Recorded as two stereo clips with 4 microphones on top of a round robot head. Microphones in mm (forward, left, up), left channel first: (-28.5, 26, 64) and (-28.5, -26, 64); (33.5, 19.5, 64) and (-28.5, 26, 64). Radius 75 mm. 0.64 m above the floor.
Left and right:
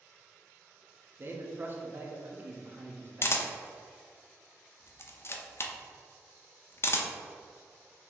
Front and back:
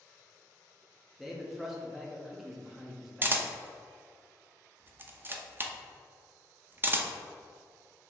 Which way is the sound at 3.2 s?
120° left.